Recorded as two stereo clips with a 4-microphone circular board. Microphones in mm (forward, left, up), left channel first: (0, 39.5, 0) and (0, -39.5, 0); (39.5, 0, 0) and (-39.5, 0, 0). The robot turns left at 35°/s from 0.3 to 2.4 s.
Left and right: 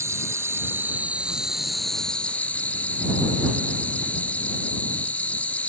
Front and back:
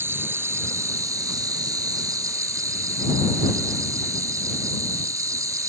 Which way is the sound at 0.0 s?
130° right.